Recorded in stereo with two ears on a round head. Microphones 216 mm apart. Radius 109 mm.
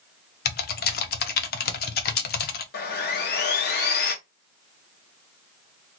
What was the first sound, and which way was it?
Typing on a keyboard, 40° left (ahead or behind).